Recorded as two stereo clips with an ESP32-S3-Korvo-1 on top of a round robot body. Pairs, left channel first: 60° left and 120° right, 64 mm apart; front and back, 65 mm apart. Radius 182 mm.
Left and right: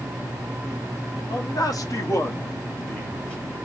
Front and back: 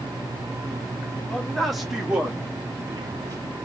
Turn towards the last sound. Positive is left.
turn(degrees=135)